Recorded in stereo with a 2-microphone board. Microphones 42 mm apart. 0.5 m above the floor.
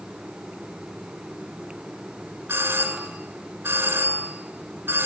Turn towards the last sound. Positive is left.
turn(degrees=-80)